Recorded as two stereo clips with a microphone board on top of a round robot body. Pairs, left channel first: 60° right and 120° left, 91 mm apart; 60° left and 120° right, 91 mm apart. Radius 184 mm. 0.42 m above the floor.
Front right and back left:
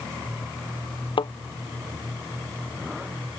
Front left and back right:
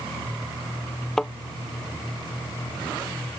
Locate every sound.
1.2 s a thud: 25° right